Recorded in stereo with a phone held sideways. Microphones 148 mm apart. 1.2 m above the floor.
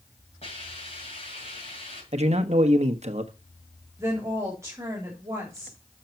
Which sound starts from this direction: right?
A man speaking, at 2.1 s.